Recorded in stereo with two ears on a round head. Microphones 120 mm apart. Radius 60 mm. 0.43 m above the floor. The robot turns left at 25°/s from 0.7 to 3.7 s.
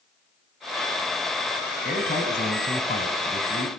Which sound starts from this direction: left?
A man speaking, at 1.9 s.